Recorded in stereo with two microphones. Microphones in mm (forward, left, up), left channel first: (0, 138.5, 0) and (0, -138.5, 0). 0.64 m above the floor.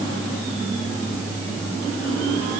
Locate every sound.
Only background noise.